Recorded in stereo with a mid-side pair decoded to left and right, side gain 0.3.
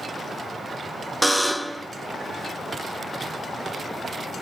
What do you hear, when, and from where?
1.2 s a buzzer: 5° right, 0.7 m